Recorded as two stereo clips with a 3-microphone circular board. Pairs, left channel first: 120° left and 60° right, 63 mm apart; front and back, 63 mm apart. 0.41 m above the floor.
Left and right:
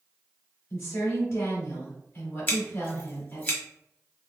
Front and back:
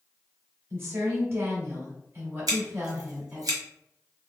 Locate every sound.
0.7 s a woman speaking: 145° left, 1.9 m
2.5 s scissors: straight behind, 1.3 m